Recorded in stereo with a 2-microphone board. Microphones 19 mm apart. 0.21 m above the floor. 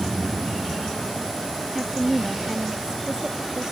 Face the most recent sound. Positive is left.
turn(degrees=-35)  # may be behind; listen again after turning